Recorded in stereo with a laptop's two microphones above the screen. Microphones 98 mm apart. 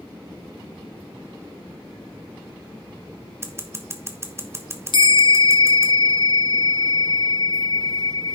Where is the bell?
55° left (ahead or behind), 1.3 m.